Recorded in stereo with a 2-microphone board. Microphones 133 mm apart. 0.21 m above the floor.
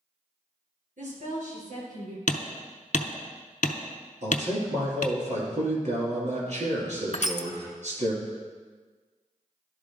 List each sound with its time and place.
1.0 s a woman speaking: 70° right (ahead or behind), 3.5 m
2.3 s hammering: 70° left (ahead or behind), 0.6 m
4.2 s a man speaking: 65° right (ahead or behind), 2.5 m
7.1 s crushing: 55° left (ahead or behind), 0.5 m